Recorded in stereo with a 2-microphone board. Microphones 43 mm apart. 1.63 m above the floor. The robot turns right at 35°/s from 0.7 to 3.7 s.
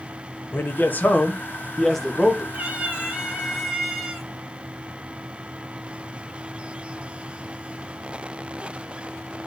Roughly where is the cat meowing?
Ahead right.